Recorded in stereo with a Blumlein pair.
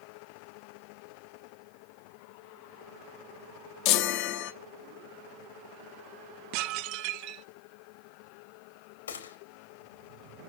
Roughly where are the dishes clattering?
Ahead right.